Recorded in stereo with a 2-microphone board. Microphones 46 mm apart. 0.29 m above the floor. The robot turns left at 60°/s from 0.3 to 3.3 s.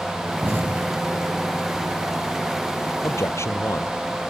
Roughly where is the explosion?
Right.